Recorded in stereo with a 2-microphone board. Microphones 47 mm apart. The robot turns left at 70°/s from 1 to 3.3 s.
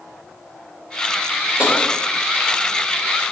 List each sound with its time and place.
1.6 s tapping: 25° right (ahead or behind), 2.5 m; by 1.7 s 35° right (ahead or behind), 2.5 m